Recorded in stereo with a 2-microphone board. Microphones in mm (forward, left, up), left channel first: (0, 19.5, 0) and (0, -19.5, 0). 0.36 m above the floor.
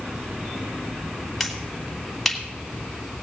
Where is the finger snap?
Centre (ahead or behind), 1.9 m.